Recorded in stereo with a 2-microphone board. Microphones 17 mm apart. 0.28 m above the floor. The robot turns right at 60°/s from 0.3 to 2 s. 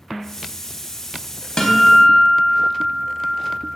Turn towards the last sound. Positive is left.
turn(degrees=55)  # may be behind; listen again after turning